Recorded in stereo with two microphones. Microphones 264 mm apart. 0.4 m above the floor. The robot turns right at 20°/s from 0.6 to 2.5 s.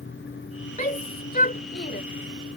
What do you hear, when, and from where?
0.8 s a shout: 30° left (ahead or behind); by 2.0 s 40° left (ahead or behind)